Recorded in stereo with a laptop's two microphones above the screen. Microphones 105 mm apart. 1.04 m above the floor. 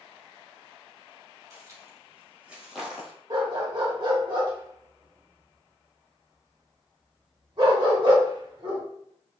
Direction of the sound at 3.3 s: 45° right (ahead or behind).